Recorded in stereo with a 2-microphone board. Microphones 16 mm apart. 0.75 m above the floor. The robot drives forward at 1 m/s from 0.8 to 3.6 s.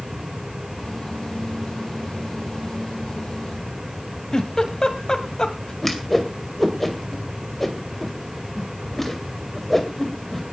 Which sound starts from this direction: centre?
A whoosh, at 5.8 s.